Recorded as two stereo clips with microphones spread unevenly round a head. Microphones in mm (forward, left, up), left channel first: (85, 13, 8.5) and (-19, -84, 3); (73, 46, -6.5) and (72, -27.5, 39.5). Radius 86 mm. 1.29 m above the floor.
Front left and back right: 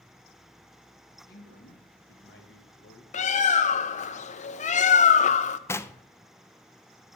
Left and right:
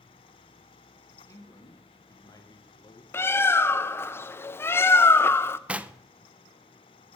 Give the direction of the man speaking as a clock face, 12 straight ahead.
10 o'clock.